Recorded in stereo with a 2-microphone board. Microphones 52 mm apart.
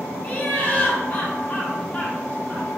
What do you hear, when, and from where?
0.2 s laughter: 25° left (ahead or behind), 1.0 m